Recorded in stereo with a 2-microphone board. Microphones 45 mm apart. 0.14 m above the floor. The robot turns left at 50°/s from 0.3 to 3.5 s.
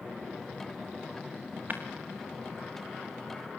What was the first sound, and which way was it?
Breaking glass, 45° right (ahead or behind).